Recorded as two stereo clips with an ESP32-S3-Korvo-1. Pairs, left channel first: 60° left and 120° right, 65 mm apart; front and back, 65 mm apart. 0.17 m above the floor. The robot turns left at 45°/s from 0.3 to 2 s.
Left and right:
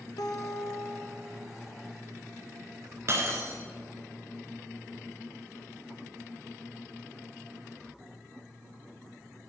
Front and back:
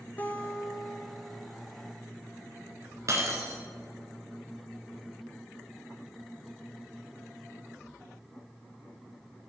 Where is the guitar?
60° left, 0.8 m; by 1.4 s 10° left, 0.8 m.